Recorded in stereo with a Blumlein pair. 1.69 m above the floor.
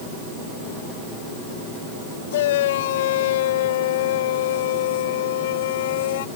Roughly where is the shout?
Ahead left.